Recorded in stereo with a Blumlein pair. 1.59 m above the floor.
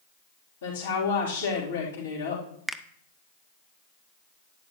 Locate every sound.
0.6 s a woman speaking: 70° left, 3.5 m
2.7 s a finger snap: straight ahead, 0.6 m